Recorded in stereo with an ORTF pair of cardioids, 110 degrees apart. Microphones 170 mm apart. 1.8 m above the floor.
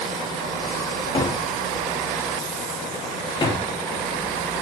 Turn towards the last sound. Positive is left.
turn(degrees=30)